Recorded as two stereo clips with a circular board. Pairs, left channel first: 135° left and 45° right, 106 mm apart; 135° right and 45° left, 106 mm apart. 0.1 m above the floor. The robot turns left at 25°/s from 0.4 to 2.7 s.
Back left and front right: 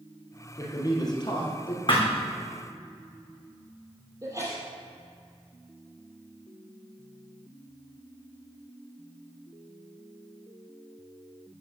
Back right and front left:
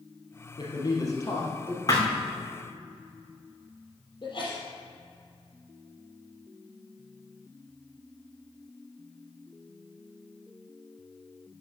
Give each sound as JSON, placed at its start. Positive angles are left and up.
{"t": 0.6, "sound": "a man speaking", "azimuth_deg": -170, "distance_m": 2.5}
{"t": 1.9, "sound": "a thud", "azimuth_deg": 170, "distance_m": 3.0}
{"t": 4.2, "sound": "a sneeze", "azimuth_deg": -100, "distance_m": 3.5}